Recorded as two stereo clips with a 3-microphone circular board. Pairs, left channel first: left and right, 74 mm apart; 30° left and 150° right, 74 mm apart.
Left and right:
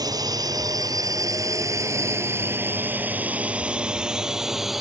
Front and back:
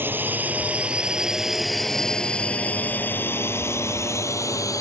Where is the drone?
90° right; by 4.8 s straight ahead.